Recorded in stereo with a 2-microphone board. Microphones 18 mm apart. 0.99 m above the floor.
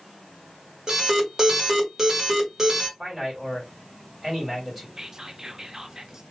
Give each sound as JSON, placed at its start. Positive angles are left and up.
{"t": 0.9, "sound": "an alarm", "side_deg": -25, "distance_m": 1.3}
{"t": 3.0, "sound": "a man speaking", "side_deg": -5, "distance_m": 2.5}
{"t": 5.0, "sound": "whispering", "side_deg": -30, "distance_m": 0.7}